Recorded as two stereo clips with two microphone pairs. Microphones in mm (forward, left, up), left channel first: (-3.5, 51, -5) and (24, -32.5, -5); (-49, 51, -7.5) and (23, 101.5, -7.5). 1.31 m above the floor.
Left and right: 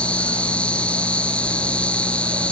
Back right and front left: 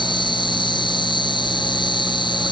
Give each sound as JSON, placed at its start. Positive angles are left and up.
{"t": 0.0, "sound": "an insect", "azimuth_deg": -175}